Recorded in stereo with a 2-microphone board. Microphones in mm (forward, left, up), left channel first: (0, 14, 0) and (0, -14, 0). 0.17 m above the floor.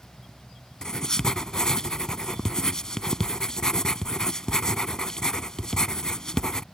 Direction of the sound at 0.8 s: 25° left (ahead or behind).